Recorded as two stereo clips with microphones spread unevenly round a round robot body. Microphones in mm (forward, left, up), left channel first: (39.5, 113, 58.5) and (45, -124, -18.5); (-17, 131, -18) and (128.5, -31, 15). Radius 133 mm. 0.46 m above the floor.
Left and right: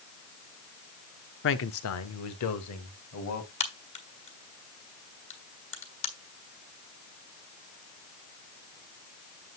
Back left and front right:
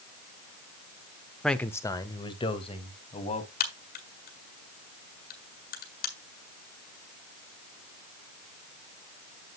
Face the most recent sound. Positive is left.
turn(degrees=165)